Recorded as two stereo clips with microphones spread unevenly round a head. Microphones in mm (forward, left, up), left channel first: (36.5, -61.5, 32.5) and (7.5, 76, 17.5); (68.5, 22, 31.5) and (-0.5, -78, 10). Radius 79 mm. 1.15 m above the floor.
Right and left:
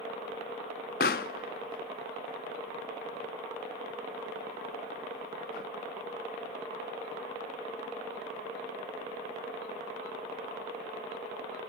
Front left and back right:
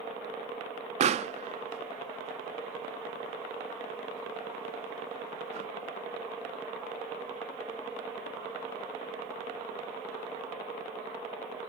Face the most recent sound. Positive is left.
turn(degrees=-90)